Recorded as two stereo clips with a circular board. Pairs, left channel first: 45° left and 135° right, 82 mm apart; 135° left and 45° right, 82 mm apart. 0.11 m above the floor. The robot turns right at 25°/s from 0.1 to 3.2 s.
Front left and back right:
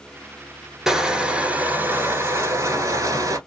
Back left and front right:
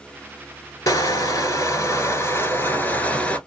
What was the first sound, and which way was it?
Crushing, 145° left.